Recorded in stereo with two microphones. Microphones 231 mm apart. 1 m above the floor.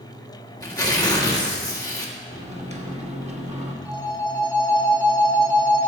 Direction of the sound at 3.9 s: 5° left (ahead or behind).